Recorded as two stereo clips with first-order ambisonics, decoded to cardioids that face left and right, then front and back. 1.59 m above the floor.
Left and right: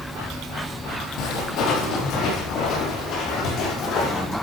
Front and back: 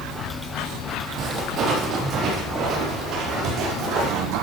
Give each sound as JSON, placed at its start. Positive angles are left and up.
{"t": 1.2, "sound": "footsteps", "azimuth_deg": 125, "distance_m": 3.5}